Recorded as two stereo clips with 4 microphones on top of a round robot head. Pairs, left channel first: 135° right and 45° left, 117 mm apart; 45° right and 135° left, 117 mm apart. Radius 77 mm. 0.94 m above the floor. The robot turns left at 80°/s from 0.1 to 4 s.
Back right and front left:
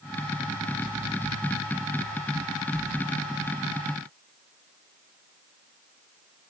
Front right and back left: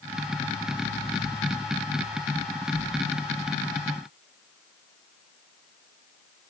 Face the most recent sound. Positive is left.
No sound to turn to.